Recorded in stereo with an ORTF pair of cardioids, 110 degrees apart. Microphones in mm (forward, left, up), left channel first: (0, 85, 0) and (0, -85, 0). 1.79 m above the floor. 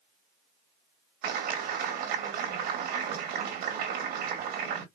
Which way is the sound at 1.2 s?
70° right.